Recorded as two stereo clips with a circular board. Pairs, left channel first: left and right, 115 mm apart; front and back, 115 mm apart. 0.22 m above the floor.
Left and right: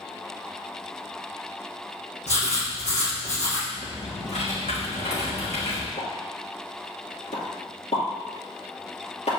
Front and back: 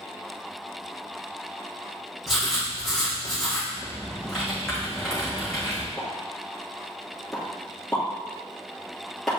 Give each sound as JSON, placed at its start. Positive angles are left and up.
{"t": 2.3, "sound": "writing", "azimuth_deg": 90, "distance_m": 3.0}
{"t": 3.7, "sound": "typing on a keyboard", "azimuth_deg": 85, "distance_m": 2.5}
{"t": 6.0, "sound": "a pop", "azimuth_deg": 90, "distance_m": 3.0}